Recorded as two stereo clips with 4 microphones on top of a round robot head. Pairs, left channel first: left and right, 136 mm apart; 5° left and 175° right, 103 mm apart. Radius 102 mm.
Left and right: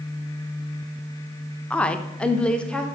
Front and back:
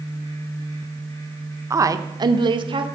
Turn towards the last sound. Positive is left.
turn(degrees=170)